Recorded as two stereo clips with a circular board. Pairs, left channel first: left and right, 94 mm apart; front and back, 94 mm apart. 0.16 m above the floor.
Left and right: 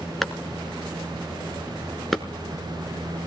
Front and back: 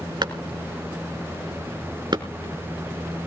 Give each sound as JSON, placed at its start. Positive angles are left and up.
{"t": 0.2, "sound": "a clap", "azimuth_deg": 180, "distance_m": 1.4}